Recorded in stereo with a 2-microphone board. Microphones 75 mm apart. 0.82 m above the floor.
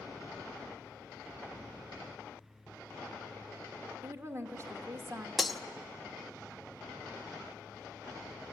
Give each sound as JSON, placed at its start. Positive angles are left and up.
{"t": 4.0, "sound": "a woman speaking", "side_deg": -40, "distance_m": 1.5}
{"t": 5.4, "sound": "breaking glass", "side_deg": 0, "distance_m": 0.6}